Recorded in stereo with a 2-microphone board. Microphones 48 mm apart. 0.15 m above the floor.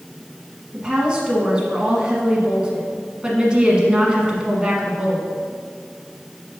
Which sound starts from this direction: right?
A woman speaking, at 0.7 s.